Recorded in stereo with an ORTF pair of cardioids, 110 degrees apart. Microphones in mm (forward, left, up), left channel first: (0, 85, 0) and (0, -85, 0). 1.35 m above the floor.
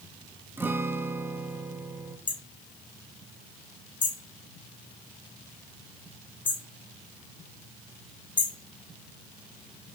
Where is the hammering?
30° left, 2.5 m.